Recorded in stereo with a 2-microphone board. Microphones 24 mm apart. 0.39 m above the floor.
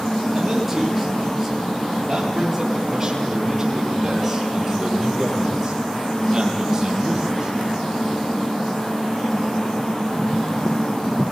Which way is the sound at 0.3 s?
Centre (ahead or behind).